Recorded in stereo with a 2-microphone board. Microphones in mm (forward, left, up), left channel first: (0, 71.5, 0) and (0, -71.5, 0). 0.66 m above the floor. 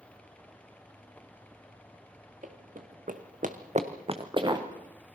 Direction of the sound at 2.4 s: 60° right (ahead or behind).